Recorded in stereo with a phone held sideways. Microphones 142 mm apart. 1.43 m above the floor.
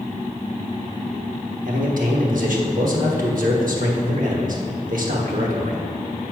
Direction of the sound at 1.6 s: 70° right (ahead or behind).